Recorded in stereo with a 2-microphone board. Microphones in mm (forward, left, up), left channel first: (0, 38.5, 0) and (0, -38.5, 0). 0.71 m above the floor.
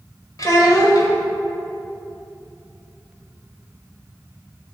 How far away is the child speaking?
About 2 m.